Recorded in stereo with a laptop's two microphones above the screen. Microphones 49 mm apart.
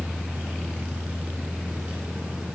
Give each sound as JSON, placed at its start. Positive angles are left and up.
{"t": 0.0, "sound": "a fan", "side_deg": -25, "distance_m": 1.4}